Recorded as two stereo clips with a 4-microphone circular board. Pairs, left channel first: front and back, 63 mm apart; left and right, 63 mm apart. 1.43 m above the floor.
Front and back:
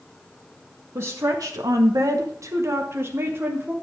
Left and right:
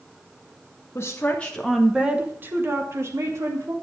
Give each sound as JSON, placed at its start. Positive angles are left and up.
{"t": 0.9, "sound": "a woman speaking", "azimuth_deg": 140, "distance_m": 1.3}